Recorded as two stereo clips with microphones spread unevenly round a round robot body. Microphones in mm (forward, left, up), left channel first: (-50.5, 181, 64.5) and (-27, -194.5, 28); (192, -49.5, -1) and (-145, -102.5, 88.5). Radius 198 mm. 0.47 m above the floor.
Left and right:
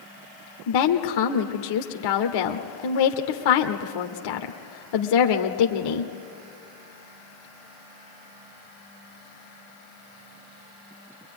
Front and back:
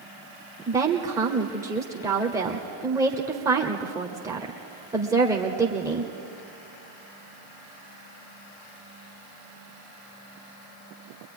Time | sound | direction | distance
0.7 | a woman speaking | 100° left | 1.3 m